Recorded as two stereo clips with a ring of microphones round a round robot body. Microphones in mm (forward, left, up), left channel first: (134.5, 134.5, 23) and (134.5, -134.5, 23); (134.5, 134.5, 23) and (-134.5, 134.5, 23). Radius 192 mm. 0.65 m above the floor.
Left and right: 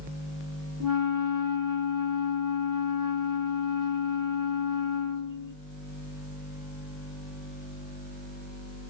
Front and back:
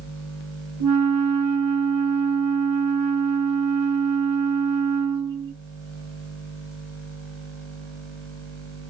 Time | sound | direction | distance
0.8 | a flute | 140° right | 0.6 m